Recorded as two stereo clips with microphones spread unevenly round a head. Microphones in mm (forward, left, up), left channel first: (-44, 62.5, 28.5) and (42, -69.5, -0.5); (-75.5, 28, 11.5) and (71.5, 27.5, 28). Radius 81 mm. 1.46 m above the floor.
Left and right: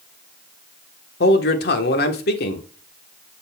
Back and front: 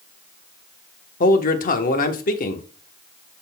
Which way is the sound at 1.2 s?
150° left.